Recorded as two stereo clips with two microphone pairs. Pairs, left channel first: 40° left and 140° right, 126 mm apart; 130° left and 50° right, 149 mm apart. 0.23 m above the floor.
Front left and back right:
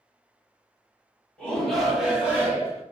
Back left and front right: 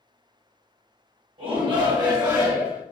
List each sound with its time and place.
1.4 s a shout: 35° right, 1.2 m; by 2.8 s 110° right, 1.0 m